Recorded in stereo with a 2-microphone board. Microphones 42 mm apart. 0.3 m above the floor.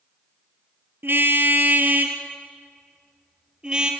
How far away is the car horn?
About 2.5 m.